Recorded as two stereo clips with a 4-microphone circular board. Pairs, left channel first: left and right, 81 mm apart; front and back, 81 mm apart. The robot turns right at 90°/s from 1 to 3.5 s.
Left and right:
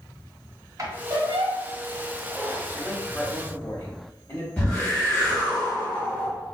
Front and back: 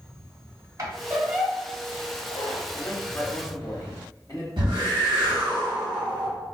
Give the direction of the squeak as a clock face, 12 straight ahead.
5 o'clock.